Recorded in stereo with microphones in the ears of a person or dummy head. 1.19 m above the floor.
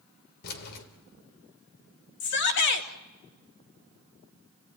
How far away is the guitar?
No guitar in this recording.